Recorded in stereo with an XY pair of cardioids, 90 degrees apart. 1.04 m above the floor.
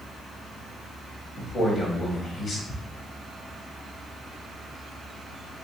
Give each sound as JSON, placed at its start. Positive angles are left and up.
{"t": 1.4, "sound": "a man speaking", "azimuth_deg": 60, "distance_m": 1.3}
{"t": 2.7, "sound": "ticking", "azimuth_deg": 35, "distance_m": 0.6}